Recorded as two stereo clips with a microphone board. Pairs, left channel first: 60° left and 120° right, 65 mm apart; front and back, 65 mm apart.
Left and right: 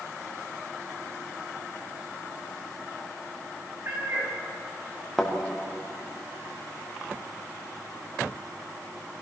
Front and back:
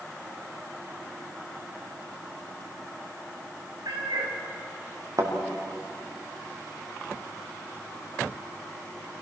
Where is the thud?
150° left, 4.5 m.